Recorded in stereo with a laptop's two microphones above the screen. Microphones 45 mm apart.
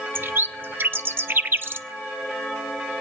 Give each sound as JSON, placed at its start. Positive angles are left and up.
{"t": 0.1, "sound": "a bird", "side_deg": -50, "distance_m": 0.5}